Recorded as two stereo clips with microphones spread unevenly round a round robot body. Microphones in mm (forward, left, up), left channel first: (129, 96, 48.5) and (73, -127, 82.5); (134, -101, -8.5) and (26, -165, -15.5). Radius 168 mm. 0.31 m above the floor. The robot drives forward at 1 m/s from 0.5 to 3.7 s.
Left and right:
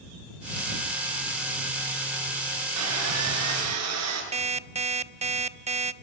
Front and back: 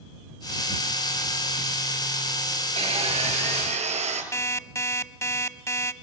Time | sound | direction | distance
2.8 | sawing | 115° right | 4.5 m
4.3 | an alarm clock | 40° right | 1.2 m